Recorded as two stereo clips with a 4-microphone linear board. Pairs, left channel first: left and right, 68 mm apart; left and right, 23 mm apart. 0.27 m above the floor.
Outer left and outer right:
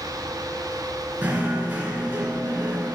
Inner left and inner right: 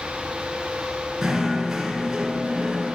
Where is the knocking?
20° right (ahead or behind), 2.5 m.